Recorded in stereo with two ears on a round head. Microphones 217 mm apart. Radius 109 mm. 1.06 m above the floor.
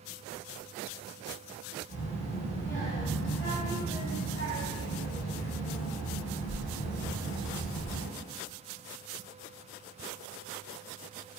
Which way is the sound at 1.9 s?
35° left (ahead or behind).